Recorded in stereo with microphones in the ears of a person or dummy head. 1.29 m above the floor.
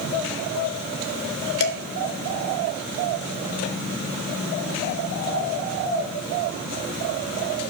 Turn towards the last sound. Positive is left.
turn(degrees=65)  # may be behind; listen again after turning